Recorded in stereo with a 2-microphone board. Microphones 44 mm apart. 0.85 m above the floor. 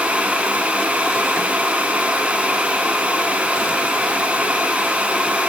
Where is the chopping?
No chopping in this recording.